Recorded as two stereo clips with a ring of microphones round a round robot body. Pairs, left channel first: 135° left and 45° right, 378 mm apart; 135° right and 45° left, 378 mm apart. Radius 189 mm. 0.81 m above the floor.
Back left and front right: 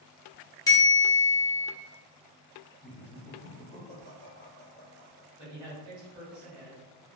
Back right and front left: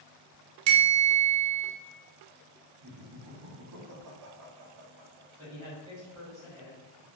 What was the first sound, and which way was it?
A bell, 60° left.